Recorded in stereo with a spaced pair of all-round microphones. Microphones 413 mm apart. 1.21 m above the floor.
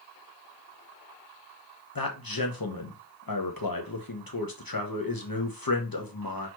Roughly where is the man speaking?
Left.